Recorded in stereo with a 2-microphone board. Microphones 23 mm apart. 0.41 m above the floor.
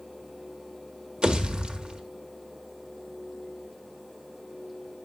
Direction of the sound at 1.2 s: 40° right (ahead or behind).